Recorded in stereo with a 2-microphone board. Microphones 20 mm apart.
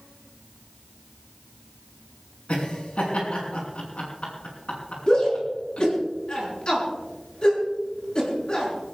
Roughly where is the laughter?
Left.